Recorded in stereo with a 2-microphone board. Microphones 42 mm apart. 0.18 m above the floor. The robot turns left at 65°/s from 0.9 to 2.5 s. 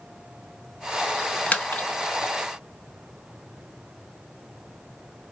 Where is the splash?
25° left (ahead or behind), 1.1 m; by 2.3 s 70° left (ahead or behind), 1.1 m.